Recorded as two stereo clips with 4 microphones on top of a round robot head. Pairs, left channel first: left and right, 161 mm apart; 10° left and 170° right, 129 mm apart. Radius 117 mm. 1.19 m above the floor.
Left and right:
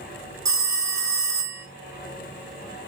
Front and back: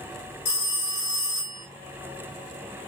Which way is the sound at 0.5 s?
20° right.